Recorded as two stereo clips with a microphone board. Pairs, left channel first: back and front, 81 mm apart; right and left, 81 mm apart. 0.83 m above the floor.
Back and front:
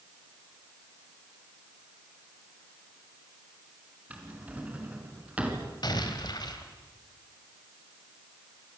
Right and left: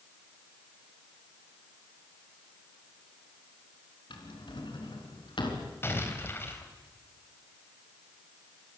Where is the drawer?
75° right, 4 m.